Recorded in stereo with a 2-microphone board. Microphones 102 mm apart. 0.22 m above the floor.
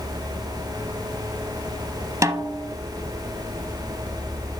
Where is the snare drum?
30° right (ahead or behind), 0.8 m.